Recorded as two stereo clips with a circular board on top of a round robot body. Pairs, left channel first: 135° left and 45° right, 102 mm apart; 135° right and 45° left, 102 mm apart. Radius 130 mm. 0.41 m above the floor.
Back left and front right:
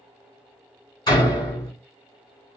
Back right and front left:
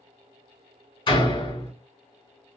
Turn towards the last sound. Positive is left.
turn(degrees=-170)